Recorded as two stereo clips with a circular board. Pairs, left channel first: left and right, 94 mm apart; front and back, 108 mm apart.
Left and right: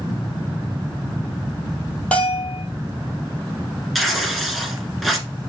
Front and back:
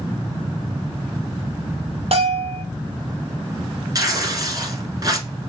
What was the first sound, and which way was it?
A bell, 165° left.